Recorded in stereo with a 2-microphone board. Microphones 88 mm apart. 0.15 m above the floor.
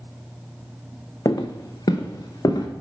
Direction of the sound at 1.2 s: 40° left (ahead or behind).